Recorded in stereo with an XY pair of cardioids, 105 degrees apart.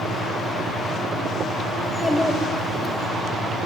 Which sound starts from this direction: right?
A fan, at 0.0 s.